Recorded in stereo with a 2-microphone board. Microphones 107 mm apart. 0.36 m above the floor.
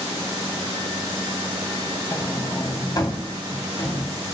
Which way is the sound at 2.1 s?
35° left (ahead or behind).